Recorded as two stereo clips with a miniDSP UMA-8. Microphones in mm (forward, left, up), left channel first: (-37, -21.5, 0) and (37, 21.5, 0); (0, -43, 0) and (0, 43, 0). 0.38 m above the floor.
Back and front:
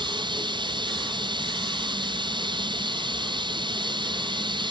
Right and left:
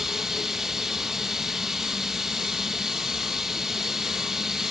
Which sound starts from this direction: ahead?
Running water, at 0.0 s.